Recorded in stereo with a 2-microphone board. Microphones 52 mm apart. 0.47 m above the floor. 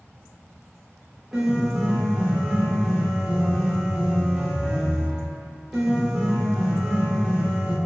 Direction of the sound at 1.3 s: Centre (ahead or behind).